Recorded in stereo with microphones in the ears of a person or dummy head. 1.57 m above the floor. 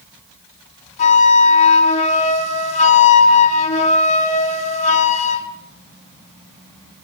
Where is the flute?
35° left (ahead or behind), 4.5 m.